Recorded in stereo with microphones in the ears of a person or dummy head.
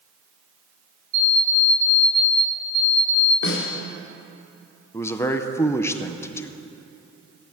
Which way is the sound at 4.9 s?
5° left (ahead or behind).